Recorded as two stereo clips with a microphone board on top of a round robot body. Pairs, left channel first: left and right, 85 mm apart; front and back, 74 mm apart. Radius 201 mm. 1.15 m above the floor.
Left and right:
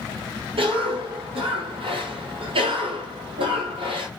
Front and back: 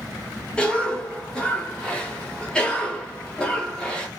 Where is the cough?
80° right, 1.1 m.